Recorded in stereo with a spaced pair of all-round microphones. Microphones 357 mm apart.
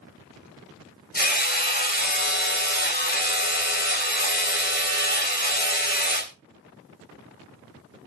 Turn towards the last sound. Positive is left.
turn(degrees=25)  # may be behind; listen again after turning